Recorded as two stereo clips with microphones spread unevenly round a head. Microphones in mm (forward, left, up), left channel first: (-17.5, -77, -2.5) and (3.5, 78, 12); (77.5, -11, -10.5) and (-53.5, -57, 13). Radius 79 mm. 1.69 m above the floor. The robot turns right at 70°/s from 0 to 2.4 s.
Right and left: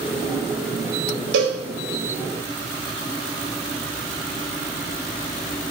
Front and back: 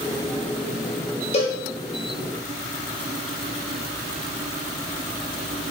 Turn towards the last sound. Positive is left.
turn(degrees=150)